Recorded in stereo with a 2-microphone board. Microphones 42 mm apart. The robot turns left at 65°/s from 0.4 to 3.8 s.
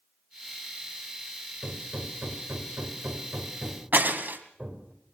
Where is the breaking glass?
50° right (ahead or behind), 2.5 m.